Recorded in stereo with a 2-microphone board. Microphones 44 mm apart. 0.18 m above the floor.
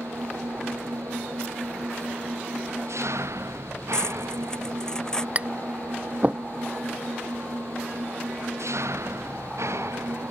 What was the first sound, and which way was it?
An engine running, 85° right.